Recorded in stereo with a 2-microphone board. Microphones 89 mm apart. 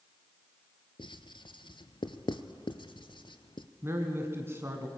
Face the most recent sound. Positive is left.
turn(degrees=-30)  # may be behind; listen again after turning